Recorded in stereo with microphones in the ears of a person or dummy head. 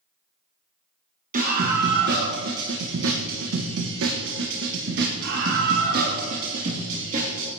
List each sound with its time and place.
1.3 s a scream: 45° right (ahead or behind), 1.5 m; by 7.5 s 40° right (ahead or behind), 3 m